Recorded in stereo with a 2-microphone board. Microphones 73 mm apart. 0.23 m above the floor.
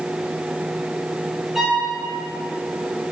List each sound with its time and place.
1.6 s a violin: 5° right (ahead or behind), 3 m